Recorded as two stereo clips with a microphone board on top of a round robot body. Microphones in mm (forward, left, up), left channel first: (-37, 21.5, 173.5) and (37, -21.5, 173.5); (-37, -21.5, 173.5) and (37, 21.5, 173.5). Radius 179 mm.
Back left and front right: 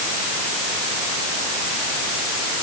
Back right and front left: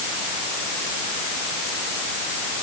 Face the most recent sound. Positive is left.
No sound to turn to.